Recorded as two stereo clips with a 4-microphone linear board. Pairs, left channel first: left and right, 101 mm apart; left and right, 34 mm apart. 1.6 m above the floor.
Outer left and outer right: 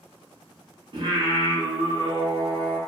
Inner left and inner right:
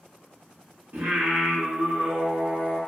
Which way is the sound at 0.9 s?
50° right (ahead or behind).